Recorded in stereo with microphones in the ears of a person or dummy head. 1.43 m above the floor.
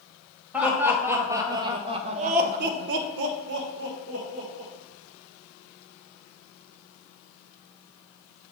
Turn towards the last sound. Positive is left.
turn(degrees=-45)  # may be behind; listen again after turning